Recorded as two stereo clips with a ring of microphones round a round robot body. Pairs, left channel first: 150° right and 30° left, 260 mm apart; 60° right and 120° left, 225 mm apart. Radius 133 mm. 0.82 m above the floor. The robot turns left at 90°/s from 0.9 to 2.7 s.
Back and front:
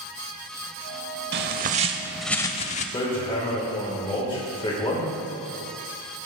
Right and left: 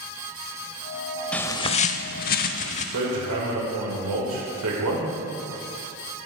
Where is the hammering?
140° left, 3 m.